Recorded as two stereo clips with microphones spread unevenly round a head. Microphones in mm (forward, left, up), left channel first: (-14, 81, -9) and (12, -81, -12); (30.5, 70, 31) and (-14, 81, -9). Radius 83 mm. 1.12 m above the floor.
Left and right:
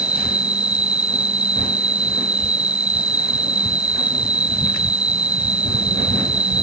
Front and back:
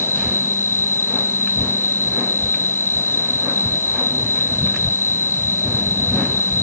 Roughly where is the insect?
Ahead.